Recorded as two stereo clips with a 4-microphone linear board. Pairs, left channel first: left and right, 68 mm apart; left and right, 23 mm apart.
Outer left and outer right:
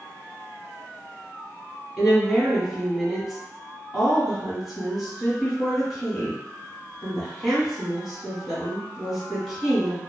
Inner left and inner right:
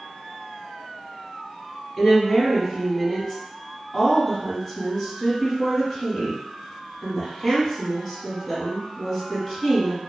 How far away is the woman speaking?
About 1.5 m.